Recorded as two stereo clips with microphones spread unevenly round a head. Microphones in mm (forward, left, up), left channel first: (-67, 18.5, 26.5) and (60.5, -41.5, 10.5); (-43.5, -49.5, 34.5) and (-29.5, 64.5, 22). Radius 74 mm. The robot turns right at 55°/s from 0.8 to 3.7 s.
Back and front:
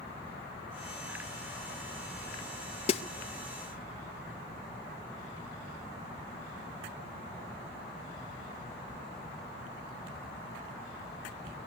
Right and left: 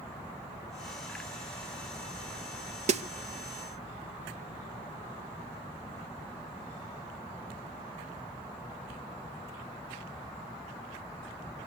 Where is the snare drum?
100° left, 1.0 m; by 3.0 s 110° left, 1.0 m.